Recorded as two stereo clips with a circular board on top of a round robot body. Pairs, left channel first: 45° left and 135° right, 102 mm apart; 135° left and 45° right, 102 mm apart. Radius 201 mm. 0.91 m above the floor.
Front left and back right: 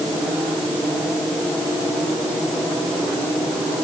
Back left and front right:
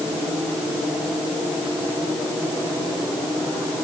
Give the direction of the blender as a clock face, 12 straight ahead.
I don't hear a blender.